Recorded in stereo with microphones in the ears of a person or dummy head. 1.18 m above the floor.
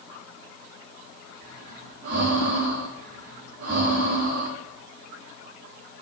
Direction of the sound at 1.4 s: 50° right (ahead or behind).